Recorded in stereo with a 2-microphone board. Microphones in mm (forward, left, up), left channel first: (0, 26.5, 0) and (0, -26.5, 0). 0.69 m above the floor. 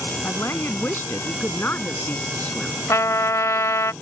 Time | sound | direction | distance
0.2 | a woman speaking | 50° left (ahead or behind) | ?
2.9 | a trumpet | 80° left | ?